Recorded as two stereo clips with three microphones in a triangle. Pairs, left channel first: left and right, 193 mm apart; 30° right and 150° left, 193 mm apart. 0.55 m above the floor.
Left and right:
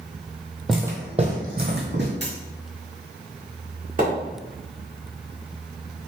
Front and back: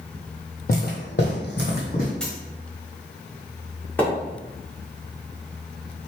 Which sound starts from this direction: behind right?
A dropped coin, at 2.2 s.